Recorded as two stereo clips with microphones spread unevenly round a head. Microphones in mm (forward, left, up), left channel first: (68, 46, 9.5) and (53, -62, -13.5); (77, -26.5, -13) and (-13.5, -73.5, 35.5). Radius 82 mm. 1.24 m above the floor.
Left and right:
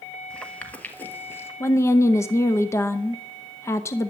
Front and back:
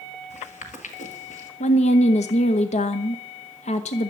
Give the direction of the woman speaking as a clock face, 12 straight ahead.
11 o'clock.